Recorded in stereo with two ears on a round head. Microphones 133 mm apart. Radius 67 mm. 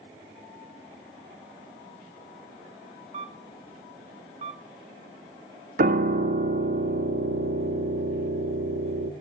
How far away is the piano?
About 0.7 m.